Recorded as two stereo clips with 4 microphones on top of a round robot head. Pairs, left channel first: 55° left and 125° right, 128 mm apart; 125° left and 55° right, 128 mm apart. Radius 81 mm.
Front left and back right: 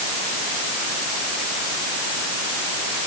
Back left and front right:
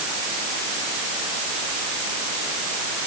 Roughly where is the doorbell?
I don't hear a doorbell.